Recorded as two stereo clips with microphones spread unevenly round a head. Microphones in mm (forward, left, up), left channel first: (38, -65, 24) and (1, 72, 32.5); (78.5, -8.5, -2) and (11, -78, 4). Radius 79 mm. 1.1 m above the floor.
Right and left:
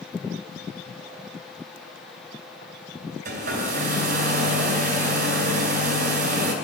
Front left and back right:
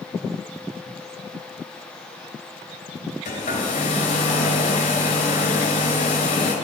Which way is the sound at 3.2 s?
85° left.